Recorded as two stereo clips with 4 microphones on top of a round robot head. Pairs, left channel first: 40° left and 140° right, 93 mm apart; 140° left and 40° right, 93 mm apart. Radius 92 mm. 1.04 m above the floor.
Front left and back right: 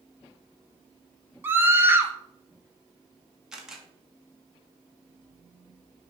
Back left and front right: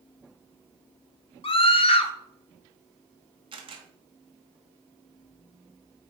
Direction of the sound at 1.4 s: 155° left.